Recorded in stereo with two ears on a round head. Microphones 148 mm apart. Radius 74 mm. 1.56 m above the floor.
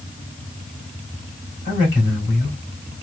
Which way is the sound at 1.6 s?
50° left (ahead or behind).